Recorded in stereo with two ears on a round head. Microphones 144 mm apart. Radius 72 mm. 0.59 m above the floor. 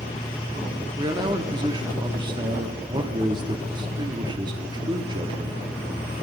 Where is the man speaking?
30° right (ahead or behind), 1.1 m.